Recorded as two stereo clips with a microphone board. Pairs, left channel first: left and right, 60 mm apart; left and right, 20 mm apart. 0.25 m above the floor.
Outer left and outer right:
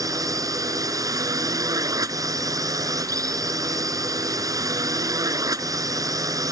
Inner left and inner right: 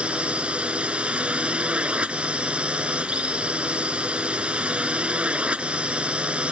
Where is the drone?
70° right (ahead or behind).